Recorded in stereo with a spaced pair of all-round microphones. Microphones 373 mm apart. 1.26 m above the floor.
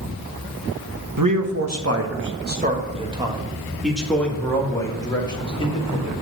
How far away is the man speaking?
About 1.4 m.